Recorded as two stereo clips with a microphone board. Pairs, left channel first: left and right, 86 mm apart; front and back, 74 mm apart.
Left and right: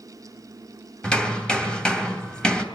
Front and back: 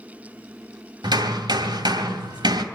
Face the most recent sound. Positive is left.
turn(degrees=170)